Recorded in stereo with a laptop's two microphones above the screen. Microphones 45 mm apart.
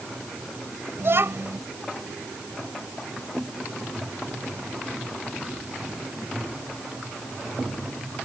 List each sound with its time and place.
1.0 s a child speaking: 60° right (ahead or behind)